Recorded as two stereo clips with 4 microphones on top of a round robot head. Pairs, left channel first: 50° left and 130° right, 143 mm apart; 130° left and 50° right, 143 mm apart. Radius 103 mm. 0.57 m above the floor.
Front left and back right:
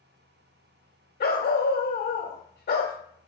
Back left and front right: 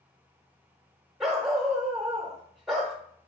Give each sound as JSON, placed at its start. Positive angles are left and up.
{"t": 1.2, "sound": "a dog barking", "azimuth_deg": 40, "distance_m": 0.9}